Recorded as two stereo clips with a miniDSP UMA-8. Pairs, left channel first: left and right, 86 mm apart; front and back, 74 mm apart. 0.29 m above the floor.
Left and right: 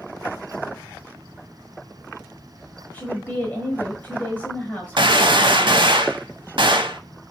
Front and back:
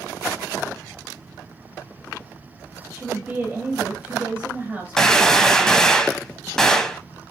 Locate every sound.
2.9 s a woman speaking: 140° left, 1.0 m
5.0 s a gunshot: 85° right, 0.6 m